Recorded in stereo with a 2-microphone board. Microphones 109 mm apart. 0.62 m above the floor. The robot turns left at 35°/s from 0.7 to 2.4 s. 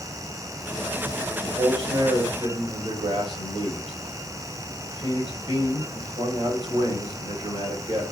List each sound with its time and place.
1.4 s a man speaking: 55° right, 2.5 m; by 8.0 s 90° right, 2.5 m